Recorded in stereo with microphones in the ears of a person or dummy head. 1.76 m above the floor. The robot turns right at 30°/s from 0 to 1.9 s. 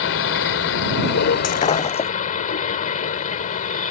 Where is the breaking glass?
40° left (ahead or behind); by 2.1 s 30° left (ahead or behind).